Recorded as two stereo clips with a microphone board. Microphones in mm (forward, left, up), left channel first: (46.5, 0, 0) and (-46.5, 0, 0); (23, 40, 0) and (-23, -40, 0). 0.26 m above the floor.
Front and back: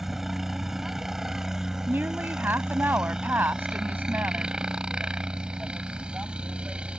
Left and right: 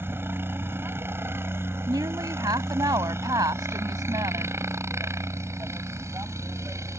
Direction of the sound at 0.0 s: 95° right.